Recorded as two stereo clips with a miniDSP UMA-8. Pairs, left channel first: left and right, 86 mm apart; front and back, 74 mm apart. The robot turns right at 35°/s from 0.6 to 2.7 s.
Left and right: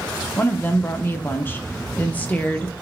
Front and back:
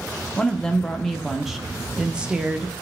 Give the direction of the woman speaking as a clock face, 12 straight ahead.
10 o'clock.